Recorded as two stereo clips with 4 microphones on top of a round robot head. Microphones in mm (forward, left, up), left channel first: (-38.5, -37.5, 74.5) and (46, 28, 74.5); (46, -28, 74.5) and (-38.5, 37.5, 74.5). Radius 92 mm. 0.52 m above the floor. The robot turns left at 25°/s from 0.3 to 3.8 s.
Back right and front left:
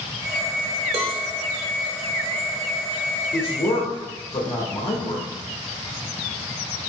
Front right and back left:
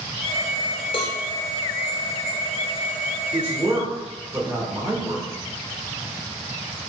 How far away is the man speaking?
About 1.9 m.